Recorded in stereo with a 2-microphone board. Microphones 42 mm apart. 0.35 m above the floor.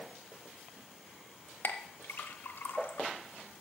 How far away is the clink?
About 0.8 m.